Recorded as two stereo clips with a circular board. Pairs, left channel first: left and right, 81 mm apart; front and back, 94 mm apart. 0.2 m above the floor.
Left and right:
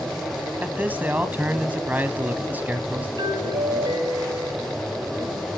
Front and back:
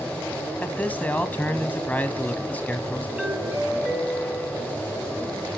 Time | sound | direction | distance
0.6 | a man speaking | 45° right | 1.4 m
3.2 | a doorbell | 105° right | 3.5 m